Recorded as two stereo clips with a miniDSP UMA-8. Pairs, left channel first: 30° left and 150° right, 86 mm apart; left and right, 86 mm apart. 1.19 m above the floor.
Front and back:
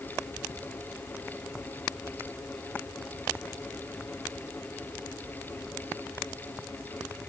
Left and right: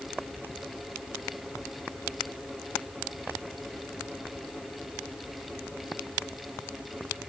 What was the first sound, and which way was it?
Only background noise.